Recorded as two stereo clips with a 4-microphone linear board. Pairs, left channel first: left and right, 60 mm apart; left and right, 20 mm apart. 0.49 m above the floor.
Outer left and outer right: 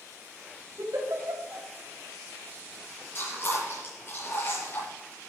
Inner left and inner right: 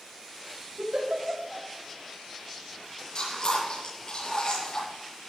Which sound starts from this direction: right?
A giggle, at 0.8 s.